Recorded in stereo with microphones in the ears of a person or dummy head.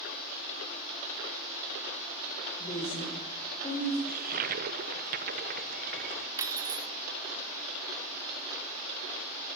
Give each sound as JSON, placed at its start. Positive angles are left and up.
{"t": 2.6, "sound": "a woman speaking", "side_deg": 30, "distance_m": 3.5}
{"t": 4.1, "sound": "a toilet flushing", "side_deg": -40, "distance_m": 0.6}
{"t": 6.4, "sound": "cutlery clinking", "side_deg": -15, "distance_m": 1.0}